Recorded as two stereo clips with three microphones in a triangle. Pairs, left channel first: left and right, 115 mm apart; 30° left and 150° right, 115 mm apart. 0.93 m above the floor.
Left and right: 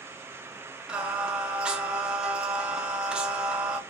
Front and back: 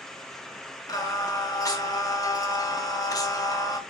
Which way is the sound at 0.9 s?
15° right.